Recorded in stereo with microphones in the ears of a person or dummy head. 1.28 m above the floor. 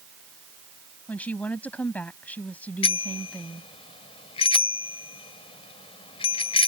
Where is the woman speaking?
10° left (ahead or behind).